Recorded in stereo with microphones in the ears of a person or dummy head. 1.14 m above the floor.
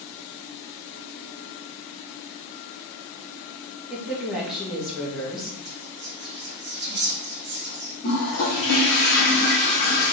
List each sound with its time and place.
3.9 s a woman speaking: 5° left (ahead or behind), 0.9 m
5.7 s whispering: 45° right (ahead or behind), 1.0 m
8.0 s a toilet flushing: 50° left (ahead or behind), 0.9 m